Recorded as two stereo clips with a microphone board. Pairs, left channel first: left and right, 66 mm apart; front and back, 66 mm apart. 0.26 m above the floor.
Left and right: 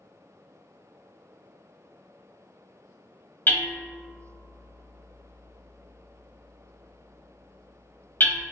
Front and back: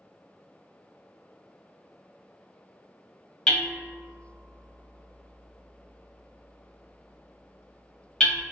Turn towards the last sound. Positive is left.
turn(degrees=75)